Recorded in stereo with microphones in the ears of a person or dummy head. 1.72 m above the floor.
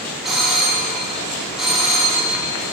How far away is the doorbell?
About 0.7 m.